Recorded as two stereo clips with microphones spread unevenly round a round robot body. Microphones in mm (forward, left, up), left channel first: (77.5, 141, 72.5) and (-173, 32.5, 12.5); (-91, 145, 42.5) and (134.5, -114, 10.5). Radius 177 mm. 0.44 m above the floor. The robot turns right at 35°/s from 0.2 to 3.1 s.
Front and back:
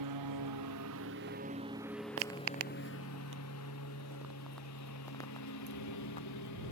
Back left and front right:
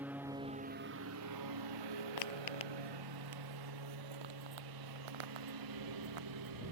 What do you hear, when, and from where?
0.0 s a lawn mower: 135° right; by 6.7 s 20° right
2.2 s footsteps: 160° left; by 6.7 s 45° right